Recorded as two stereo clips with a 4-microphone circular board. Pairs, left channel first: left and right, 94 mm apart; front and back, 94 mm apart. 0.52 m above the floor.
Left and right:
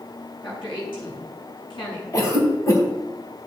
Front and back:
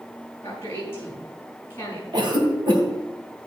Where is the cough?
145° left, 3 m.